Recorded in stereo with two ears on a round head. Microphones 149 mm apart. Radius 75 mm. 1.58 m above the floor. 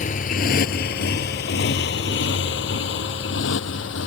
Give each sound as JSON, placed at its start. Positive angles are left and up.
{"t": 0.0, "sound": "a motorcycle", "side_deg": 50}